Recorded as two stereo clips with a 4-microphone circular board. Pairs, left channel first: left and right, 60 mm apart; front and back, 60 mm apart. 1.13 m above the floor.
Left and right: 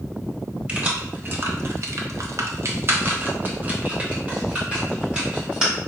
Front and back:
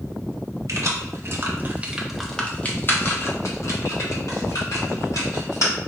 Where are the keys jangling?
155° right, 1.0 m; by 5.7 s 15° right, 2.5 m.